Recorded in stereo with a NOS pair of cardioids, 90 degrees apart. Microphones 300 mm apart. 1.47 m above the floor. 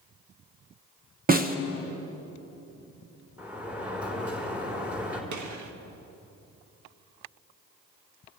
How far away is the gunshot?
About 1.6 m.